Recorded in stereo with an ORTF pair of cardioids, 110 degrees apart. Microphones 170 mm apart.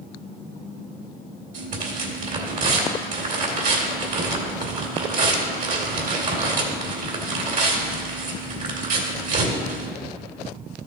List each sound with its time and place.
1.5 s tearing paper: 50° right, 2.0 m